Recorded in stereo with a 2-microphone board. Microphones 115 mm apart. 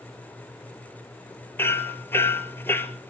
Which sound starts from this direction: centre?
Hammering, at 1.6 s.